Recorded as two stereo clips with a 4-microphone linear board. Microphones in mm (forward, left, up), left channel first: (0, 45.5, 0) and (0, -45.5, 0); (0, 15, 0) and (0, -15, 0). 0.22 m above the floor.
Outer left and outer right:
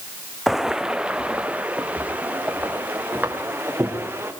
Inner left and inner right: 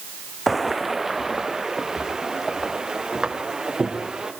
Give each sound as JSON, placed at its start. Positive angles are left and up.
{"t": 0.5, "sound": "footsteps", "side_deg": 0, "distance_m": 0.7}